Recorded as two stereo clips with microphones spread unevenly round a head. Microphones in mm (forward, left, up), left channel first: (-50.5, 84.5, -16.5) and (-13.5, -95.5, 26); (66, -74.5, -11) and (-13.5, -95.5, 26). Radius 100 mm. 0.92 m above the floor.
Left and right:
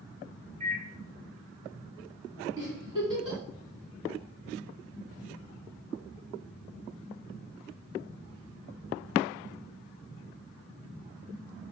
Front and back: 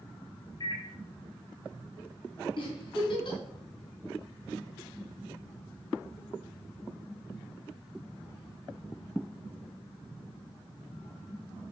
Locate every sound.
0.6 s a microwave: 15° right, 1.5 m
2.6 s a giggle: 10° right, 3 m